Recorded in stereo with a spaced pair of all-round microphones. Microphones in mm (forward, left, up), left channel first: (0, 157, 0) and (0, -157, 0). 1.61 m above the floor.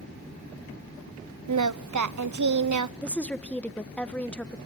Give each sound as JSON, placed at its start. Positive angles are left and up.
{"t": 1.5, "sound": "singing", "side_deg": -65, "distance_m": 0.6}
{"t": 3.0, "sound": "a woman speaking", "side_deg": 5, "distance_m": 1.1}